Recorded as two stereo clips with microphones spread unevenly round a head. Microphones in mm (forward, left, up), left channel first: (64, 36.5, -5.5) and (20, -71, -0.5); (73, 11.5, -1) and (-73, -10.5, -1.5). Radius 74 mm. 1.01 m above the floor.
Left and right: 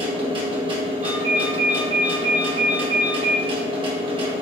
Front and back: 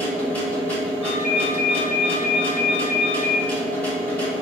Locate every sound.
0.0 s a machine running: 70° right, 0.9 m
1.0 s a ringtone: 80° right, 1.2 m